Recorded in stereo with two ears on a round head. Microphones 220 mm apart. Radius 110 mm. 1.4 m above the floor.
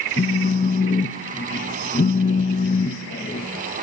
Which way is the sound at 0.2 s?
25° left (ahead or behind).